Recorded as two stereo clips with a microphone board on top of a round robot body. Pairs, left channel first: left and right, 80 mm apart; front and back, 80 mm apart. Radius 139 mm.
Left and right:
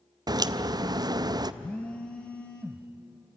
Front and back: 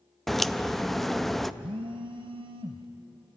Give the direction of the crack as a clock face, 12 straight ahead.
3 o'clock.